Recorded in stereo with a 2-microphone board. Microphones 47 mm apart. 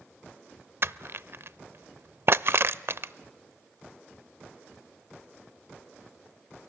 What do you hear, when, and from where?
0.8 s crushing: 55° right (ahead or behind), 0.6 m